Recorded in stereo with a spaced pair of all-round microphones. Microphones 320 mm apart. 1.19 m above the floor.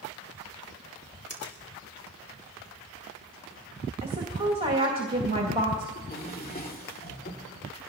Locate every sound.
1.3 s a finger snap: 50° left (ahead or behind), 2.5 m
4.0 s a woman speaking: 15° right (ahead or behind), 2 m
6.0 s a drawer: 25° left (ahead or behind), 2 m